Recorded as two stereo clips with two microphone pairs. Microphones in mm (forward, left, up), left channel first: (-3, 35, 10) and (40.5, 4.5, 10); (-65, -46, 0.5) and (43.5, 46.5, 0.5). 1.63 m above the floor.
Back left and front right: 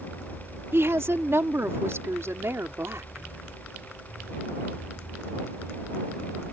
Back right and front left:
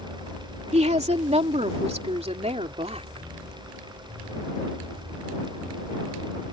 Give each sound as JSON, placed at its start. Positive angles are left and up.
{"t": 0.7, "sound": "a woman speaking", "azimuth_deg": 0}